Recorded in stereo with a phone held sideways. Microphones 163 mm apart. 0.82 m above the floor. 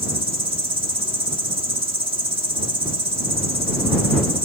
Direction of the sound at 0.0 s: 35° right (ahead or behind).